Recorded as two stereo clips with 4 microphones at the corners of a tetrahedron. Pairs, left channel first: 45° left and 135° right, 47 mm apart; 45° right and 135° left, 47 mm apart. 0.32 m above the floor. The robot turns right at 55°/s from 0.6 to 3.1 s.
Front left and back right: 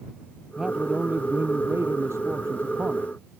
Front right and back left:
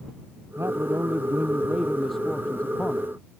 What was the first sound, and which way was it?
A man speaking, 145° left.